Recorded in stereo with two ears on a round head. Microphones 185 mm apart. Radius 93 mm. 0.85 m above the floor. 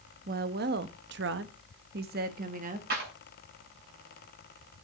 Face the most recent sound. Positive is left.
turn(degrees=-50)  # may be behind; listen again after turning